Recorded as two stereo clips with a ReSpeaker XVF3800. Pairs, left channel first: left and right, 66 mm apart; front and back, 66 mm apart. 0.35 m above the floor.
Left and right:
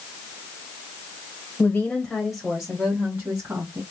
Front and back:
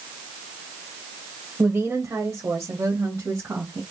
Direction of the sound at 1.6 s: 135° left.